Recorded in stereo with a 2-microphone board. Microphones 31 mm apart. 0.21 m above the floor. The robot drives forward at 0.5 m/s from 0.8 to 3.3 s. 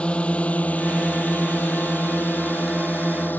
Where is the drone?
40° left (ahead or behind); by 3.4 s 75° left (ahead or behind).